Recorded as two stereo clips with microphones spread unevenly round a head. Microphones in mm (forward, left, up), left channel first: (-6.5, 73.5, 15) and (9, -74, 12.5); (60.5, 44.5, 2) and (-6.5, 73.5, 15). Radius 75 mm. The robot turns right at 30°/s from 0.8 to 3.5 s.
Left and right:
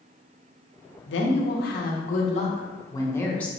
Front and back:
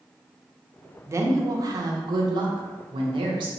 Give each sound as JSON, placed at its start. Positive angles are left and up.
{"t": 1.1, "sound": "a woman speaking", "azimuth_deg": 105, "distance_m": 0.7}